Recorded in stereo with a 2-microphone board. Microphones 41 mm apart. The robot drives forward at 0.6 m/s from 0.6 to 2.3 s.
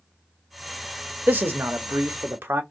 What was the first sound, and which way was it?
A man speaking, 50° right (ahead or behind).